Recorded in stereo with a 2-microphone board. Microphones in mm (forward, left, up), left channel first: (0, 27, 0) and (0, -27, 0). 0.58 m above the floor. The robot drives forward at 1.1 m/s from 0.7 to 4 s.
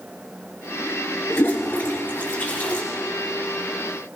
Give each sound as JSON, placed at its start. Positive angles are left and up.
{"t": 1.3, "sound": "a toilet flushing", "side_deg": 50, "distance_m": 3.5}